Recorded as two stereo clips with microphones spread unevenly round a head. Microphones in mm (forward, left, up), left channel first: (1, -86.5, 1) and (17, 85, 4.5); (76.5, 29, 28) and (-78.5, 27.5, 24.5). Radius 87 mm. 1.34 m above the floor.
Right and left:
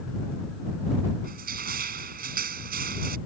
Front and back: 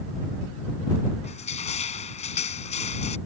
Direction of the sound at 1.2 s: 50° left.